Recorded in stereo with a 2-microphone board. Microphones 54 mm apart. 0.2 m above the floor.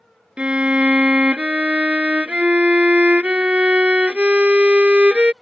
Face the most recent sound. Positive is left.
turn(degrees=-25)  # may be behind; listen again after turning